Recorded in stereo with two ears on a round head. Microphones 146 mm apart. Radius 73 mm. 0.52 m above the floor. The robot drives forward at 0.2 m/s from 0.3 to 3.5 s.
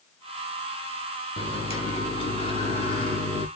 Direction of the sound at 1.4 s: 35° left (ahead or behind).